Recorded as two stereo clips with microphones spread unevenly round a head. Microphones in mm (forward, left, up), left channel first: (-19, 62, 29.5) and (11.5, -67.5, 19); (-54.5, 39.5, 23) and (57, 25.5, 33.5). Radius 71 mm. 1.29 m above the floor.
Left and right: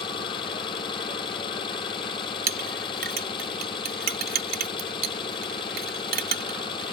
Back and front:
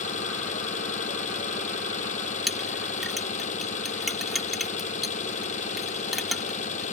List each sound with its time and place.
0.0 s an engine running: 160° left
2.5 s a clink: 95° right